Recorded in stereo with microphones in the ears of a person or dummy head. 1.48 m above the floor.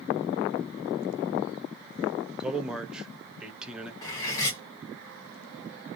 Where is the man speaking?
5° right (ahead or behind), 0.7 m.